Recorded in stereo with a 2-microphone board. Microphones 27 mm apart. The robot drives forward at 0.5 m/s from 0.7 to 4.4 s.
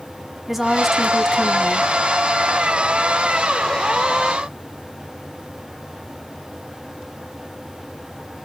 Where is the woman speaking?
10° right (ahead or behind), 1.0 m; by 1.9 s 5° right (ahead or behind), 1.3 m.